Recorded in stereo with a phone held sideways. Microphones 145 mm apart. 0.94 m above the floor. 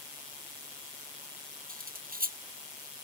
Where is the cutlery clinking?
80° right.